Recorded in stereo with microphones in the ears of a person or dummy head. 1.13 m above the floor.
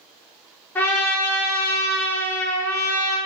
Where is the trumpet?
10° left (ahead or behind), 1.2 m.